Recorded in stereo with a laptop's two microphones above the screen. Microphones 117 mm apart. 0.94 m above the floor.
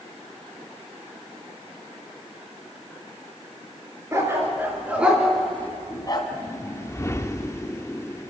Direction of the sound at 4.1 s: 25° right (ahead or behind).